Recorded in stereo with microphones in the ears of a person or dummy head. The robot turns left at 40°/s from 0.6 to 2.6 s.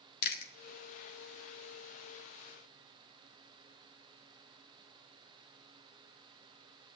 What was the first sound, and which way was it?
Chewing, 65° left (ahead or behind).